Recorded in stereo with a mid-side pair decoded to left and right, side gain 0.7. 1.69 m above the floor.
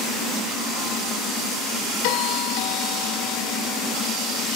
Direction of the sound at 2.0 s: 70° left.